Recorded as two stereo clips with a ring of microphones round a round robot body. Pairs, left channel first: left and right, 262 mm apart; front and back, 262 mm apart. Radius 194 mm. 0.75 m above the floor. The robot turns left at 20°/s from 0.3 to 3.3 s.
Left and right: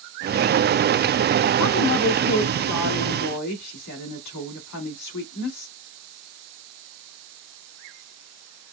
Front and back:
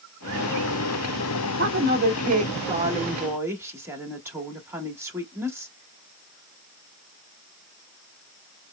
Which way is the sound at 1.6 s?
135° left.